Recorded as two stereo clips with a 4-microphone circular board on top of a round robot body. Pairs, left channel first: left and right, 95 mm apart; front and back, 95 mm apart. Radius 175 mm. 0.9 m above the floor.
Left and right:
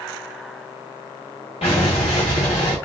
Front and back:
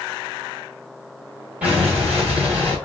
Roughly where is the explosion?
Left.